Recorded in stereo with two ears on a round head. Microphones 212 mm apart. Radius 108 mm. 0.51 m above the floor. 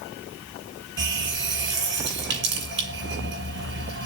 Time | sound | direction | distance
1.0 | a running tap | 55° right (ahead or behind) | 8 m